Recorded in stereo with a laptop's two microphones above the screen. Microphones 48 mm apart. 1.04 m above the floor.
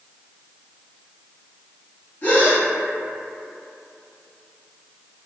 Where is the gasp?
35° left (ahead or behind), 1.0 m.